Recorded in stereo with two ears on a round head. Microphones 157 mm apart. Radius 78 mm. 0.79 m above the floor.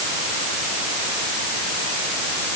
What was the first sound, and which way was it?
Only background noise.